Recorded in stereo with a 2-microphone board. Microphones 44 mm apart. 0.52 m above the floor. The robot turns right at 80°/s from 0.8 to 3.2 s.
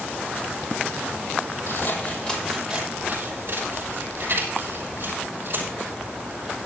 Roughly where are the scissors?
Left.